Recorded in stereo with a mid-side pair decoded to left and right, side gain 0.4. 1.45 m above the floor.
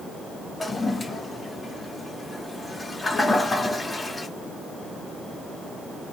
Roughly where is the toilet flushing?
Ahead left.